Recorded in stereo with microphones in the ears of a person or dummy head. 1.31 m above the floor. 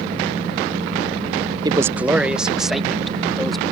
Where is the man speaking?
20° right (ahead or behind); by 3.6 s 5° left (ahead or behind).